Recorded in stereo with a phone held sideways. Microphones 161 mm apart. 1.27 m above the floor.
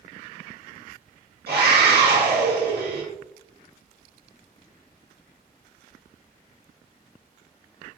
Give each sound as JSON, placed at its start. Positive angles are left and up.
{"t": 1.5, "sound": "a scream", "side_deg": -85, "distance_m": 1.8}